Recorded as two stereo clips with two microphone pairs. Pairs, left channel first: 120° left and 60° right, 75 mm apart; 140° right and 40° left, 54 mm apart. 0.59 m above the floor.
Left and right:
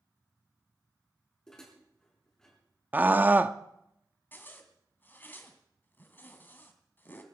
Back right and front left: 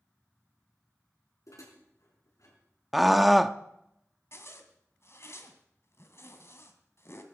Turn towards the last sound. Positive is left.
turn(degrees=-175)